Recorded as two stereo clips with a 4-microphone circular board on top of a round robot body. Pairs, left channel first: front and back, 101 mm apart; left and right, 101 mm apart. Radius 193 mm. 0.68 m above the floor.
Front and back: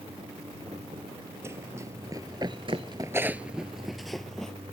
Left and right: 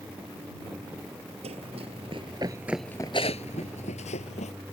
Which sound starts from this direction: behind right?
Running footsteps, at 1.4 s.